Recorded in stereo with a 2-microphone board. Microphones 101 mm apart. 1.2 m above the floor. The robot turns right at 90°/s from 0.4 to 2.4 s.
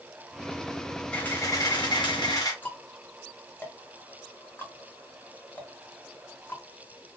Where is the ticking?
20° left (ahead or behind), 1.0 m.